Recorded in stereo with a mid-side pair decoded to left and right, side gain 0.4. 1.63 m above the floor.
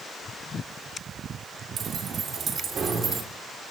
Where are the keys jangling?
65° right, 3.5 m; by 3.2 s 45° right, 4 m.